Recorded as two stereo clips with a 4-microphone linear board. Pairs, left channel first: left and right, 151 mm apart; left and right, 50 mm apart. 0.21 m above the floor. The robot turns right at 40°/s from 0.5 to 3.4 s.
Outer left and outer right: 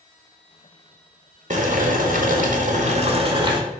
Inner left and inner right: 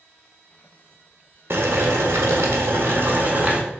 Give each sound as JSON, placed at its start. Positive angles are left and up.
{"t": 1.5, "sound": "boiling", "azimuth_deg": -115, "distance_m": 0.6}